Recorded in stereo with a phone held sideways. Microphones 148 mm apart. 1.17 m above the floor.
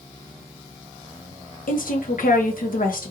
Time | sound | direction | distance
1.7 | a woman speaking | 70° left (ahead or behind) | 1.1 m